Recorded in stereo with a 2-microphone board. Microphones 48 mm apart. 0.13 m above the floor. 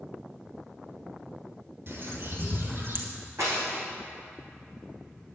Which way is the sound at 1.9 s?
50° right (ahead or behind).